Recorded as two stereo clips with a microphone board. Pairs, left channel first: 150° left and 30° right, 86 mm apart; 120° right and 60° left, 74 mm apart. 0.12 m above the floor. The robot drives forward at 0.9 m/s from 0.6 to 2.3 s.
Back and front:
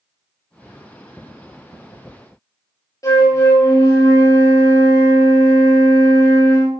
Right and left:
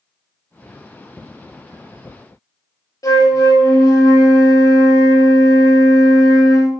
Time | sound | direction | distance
3.0 | a flute | 160° right | 3 m